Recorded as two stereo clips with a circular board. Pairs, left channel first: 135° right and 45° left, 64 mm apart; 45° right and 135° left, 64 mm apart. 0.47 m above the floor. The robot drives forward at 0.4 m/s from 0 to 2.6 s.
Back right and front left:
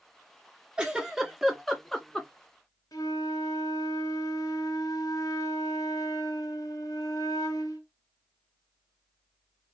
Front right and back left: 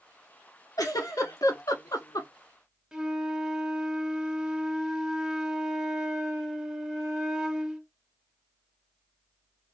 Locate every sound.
0.8 s a giggle: 35° right, 1.1 m; by 2.3 s 60° right, 0.7 m
2.9 s a flute: 150° right, 0.7 m